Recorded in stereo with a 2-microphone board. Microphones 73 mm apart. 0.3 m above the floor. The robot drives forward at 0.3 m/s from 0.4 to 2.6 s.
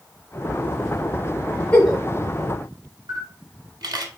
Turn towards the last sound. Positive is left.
turn(degrees=-75)  # may be behind; listen again after turning